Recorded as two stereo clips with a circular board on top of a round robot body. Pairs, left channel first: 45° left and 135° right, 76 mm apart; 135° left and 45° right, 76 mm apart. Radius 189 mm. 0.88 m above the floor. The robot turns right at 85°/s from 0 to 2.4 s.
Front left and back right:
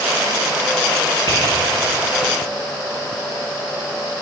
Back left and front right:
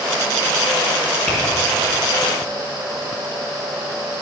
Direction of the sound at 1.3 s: 65° left.